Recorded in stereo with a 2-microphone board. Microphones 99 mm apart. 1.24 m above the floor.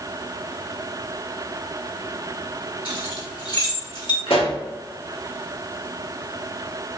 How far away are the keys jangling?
About 1.8 m.